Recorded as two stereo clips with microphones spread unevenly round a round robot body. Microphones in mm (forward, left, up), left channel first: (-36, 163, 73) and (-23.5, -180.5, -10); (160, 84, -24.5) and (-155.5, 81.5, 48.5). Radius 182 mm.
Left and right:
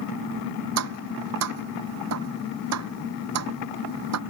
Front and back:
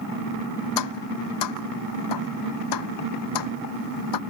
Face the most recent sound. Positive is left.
turn(degrees=-40)